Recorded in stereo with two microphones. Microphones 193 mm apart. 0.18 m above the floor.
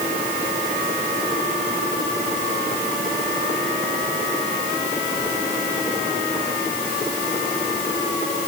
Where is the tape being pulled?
I don't hear tape being pulled.